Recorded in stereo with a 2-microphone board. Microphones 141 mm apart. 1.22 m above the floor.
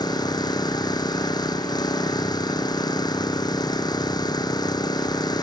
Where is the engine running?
30° left (ahead or behind).